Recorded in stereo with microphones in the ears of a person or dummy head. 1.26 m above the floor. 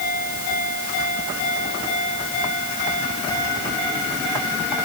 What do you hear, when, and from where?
Only background noise.